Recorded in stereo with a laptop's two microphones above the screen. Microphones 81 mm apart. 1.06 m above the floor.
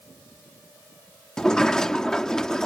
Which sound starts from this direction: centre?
A sliding door, at 1.4 s.